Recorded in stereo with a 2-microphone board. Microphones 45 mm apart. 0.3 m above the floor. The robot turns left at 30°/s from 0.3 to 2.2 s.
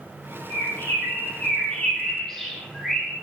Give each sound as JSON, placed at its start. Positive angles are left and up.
{"t": 0.5, "sound": "a bird", "side_deg": 60, "distance_m": 10.0}